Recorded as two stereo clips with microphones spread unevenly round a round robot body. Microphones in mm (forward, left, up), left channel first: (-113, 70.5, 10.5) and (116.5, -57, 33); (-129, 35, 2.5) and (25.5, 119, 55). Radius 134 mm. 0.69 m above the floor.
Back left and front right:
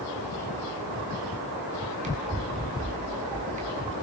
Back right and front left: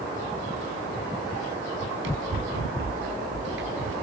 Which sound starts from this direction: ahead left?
Running footsteps, at 1.8 s.